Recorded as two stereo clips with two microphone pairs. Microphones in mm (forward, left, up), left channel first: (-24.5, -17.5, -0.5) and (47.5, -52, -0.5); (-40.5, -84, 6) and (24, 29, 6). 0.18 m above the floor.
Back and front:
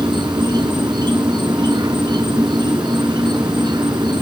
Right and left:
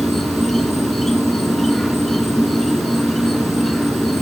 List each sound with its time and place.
0.0 s an insect: 35° right, 0.8 m